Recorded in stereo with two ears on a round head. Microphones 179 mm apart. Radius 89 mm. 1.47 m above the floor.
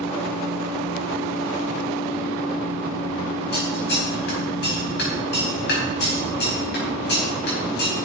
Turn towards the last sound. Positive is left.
turn(degrees=60)  # may be behind; listen again after turning